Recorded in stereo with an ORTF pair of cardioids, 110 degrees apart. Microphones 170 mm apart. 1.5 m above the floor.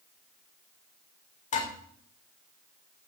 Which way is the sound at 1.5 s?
45° left.